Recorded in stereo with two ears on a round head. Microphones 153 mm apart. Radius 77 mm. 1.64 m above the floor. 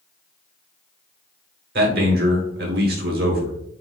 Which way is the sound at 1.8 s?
60° right (ahead or behind).